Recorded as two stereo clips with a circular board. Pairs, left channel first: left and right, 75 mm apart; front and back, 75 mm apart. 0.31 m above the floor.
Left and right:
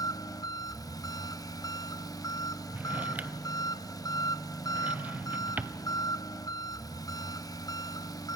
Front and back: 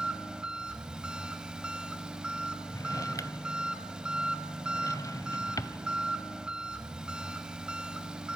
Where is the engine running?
105° left, 1.0 m.